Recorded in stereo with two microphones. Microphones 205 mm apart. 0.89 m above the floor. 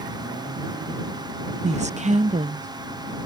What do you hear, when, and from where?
1.6 s a woman speaking: 35° right (ahead or behind)